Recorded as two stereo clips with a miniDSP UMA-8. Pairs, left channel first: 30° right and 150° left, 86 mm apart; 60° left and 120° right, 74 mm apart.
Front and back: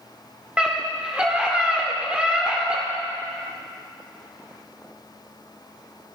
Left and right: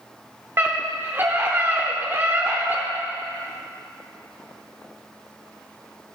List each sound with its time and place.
0.6 s a scream: 140° right, 1.0 m